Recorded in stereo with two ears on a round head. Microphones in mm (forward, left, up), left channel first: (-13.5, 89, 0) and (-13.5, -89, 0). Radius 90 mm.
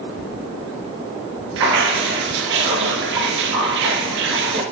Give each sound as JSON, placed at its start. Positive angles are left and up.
{"t": 1.6, "sound": "dripping", "side_deg": -70, "distance_m": 3.0}